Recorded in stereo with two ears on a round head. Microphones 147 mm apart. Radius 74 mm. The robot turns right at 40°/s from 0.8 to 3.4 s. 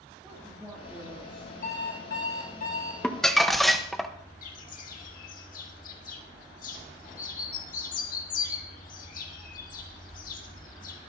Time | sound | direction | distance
0.2 | a woman speaking | 5° right (ahead or behind) | 2 m
1.6 | an alarm clock | 70° left | 3.5 m
3.0 | crumpling | 5° left (ahead or behind) | 0.8 m
4.4 | a bird | 55° left (ahead or behind) | 1.6 m